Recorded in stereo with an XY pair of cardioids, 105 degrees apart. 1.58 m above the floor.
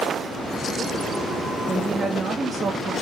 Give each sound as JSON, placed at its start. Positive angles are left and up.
{"t": 1.7, "sound": "a woman speaking", "azimuth_deg": -25, "distance_m": 2.5}